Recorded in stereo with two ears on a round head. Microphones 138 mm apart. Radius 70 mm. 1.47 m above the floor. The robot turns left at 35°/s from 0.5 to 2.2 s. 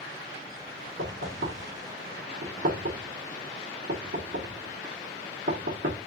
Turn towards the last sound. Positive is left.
turn(degrees=-70)  # may be behind; listen again after turning